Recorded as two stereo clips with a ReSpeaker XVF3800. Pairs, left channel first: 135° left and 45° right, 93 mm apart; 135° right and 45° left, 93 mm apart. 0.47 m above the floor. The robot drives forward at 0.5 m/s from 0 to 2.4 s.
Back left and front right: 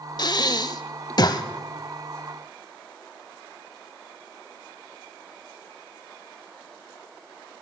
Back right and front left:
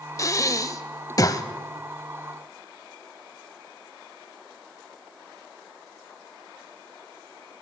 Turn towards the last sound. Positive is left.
turn(degrees=175)